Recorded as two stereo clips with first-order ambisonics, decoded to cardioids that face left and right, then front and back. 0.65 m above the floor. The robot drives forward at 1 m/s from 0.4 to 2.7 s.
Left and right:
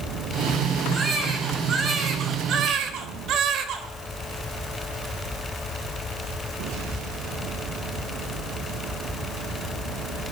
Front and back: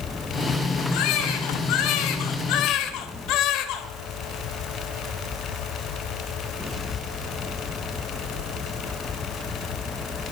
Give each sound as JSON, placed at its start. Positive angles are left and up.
{"t": 0.9, "sound": "a baby crying", "azimuth_deg": -20, "distance_m": 3.5}